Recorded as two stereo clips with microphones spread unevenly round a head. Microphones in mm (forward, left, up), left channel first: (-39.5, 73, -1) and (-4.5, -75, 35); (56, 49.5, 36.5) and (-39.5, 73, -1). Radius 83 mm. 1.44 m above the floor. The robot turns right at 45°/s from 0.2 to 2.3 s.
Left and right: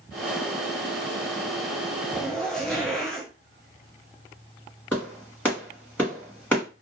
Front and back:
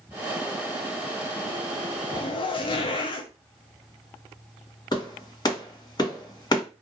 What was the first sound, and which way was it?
A zipper, 20° left.